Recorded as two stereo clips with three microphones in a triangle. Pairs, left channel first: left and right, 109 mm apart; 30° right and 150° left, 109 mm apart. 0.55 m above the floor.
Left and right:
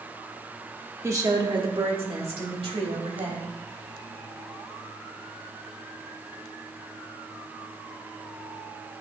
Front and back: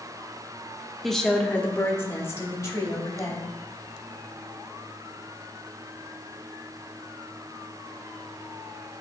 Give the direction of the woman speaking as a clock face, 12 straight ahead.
4 o'clock.